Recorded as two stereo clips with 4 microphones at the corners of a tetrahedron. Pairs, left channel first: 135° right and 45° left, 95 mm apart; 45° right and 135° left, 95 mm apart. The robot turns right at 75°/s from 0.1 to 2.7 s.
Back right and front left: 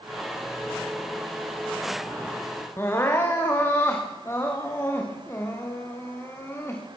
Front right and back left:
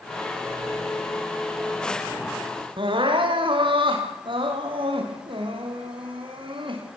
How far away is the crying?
About 6.5 m.